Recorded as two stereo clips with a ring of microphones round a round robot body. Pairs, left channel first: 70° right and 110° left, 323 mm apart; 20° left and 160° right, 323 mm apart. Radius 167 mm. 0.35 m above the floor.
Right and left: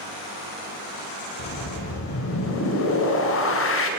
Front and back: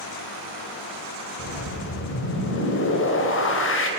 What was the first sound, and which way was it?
A whoosh, 25° right.